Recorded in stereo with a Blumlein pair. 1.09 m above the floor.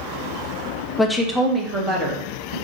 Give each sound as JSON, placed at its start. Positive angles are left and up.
{"t": 1.0, "sound": "a woman speaking", "azimuth_deg": 10, "distance_m": 0.5}